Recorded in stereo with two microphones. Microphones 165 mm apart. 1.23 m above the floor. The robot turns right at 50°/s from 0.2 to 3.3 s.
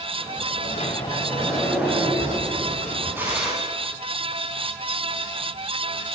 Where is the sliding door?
130° left, 5.5 m; by 3.5 s 95° right, 5.5 m.